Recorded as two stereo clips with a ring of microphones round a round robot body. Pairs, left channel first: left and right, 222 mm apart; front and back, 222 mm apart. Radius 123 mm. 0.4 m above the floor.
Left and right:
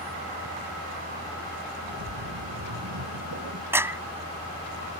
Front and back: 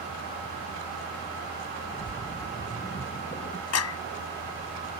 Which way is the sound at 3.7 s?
10° right.